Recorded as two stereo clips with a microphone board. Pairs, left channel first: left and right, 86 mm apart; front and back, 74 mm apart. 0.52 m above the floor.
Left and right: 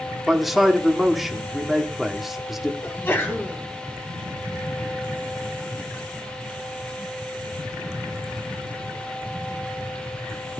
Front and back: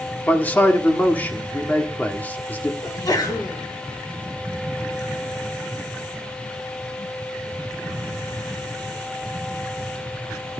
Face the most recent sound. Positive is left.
turn(degrees=25)